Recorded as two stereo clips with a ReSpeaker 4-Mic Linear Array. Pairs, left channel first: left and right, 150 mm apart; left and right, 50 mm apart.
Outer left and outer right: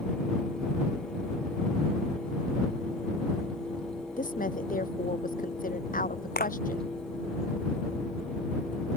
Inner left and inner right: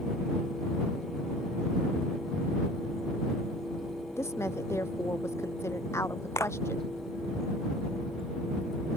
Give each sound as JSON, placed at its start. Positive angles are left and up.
{"t": 4.2, "sound": "a woman speaking", "side_deg": 65}
{"t": 6.4, "sound": "a clap", "side_deg": 75}